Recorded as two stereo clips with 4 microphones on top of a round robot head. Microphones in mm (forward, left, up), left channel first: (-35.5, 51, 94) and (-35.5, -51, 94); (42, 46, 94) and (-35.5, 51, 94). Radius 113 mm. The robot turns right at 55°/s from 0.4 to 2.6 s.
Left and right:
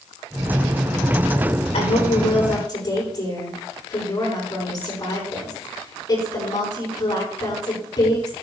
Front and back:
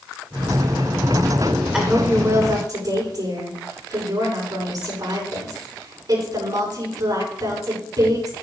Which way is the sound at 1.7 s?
95° left.